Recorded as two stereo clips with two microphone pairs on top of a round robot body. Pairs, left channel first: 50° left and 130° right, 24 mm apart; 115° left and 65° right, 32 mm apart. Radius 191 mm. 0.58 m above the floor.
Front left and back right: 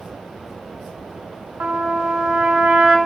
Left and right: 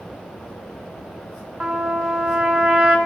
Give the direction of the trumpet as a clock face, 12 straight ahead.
4 o'clock.